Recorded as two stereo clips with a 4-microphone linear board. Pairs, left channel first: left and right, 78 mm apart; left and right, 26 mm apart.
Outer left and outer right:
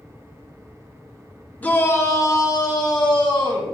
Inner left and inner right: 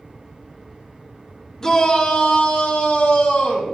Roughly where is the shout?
Centre.